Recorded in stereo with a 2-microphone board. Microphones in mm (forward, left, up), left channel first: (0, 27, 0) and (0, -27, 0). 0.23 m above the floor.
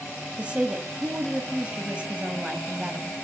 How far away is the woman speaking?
About 1.0 m.